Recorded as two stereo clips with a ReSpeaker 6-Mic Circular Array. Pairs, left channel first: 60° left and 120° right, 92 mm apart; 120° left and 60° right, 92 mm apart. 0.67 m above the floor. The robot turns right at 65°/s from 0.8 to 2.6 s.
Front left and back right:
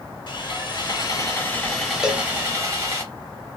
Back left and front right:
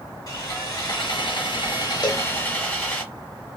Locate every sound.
0.3 s sawing: 75° left, 1.2 m; by 3.0 s 165° right, 1.2 m
2.0 s a cowbell: 155° left, 0.6 m; by 2.3 s 170° left, 0.6 m